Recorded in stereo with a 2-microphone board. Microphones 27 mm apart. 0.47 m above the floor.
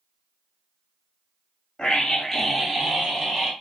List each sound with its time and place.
1.8 s a scream: 30° left (ahead or behind), 0.8 m; by 3.5 s 20° right (ahead or behind), 1.4 m